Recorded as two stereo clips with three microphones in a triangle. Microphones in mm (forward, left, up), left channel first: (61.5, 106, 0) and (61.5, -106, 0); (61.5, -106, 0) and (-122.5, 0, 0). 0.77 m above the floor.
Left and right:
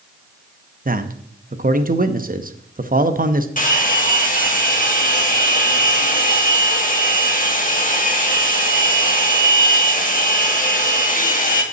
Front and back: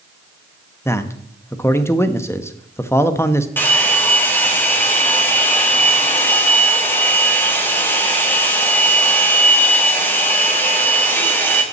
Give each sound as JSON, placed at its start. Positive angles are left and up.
{"t": 0.8, "sound": "a man speaking", "azimuth_deg": -105, "distance_m": 0.7}
{"t": 3.6, "sound": "a hair dryer", "azimuth_deg": 50, "distance_m": 1.5}